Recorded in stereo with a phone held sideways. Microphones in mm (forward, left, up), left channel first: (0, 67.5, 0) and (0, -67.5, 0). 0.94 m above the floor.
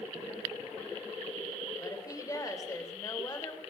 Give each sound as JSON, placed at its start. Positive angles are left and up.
{"t": 1.8, "sound": "a woman speaking", "side_deg": 25, "distance_m": 3.0}